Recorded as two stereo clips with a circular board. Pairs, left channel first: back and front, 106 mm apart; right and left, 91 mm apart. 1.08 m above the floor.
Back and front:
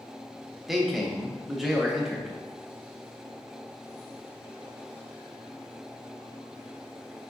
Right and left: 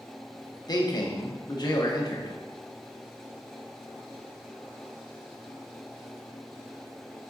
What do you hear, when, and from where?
0.7 s a man speaking: 90° right, 0.7 m